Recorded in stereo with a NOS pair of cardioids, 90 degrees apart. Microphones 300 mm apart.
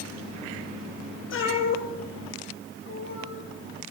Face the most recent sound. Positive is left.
turn(degrees=75)